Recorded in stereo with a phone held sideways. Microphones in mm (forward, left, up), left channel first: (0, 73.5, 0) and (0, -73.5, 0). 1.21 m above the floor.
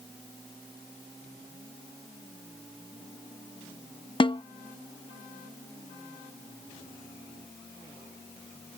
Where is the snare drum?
35° left (ahead or behind).